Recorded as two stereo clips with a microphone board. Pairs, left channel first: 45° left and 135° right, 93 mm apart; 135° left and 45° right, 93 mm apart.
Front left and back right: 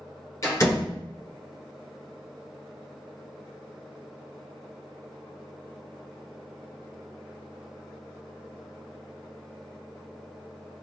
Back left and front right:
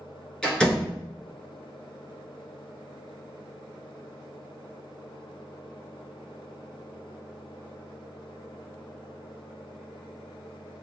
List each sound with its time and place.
0.4 s a door slam: 60° left, 1.3 m